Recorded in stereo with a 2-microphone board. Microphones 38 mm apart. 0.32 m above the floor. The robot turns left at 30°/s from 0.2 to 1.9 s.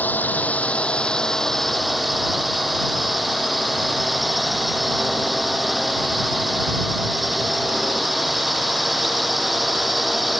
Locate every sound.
0.0 s a drone: 50° left; by 10.4 s straight ahead